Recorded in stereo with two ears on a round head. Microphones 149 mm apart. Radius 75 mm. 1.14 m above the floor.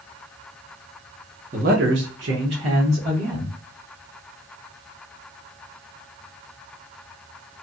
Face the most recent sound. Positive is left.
turn(degrees=-55)  # may be behind; listen again after turning